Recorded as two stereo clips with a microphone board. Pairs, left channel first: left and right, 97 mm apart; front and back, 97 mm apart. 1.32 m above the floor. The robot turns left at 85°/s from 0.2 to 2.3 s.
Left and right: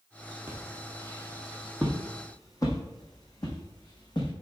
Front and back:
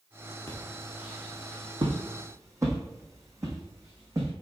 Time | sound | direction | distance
0.5 | footsteps | 50° right | 1.5 m